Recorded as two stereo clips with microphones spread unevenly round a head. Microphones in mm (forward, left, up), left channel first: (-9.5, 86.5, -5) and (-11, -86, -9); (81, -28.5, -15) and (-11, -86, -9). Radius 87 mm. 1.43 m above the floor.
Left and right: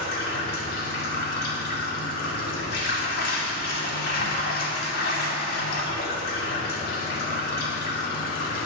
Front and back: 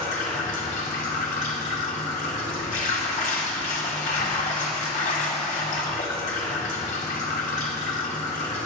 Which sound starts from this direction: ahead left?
Running water, at 0.0 s.